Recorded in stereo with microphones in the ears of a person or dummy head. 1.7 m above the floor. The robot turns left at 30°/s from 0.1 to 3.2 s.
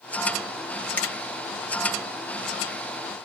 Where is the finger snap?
10° left (ahead or behind), 1.2 m; by 1.1 s 5° left (ahead or behind), 1.2 m.